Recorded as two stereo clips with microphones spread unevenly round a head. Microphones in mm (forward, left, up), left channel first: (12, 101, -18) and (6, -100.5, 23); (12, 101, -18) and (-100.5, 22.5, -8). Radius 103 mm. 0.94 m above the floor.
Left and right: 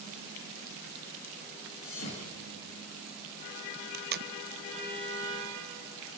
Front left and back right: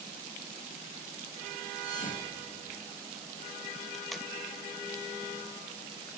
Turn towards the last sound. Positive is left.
turn(degrees=-50)